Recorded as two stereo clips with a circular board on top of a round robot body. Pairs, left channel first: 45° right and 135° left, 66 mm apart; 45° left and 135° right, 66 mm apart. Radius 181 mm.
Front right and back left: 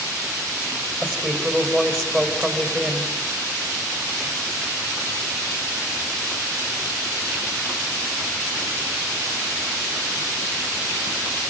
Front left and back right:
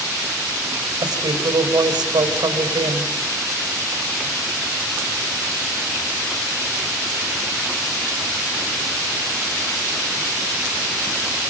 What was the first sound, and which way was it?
A woman speaking, 135° right.